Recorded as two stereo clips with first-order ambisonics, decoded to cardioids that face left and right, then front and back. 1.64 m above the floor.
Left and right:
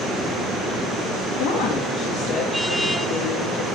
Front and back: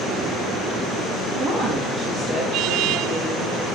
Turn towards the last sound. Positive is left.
turn(degrees=130)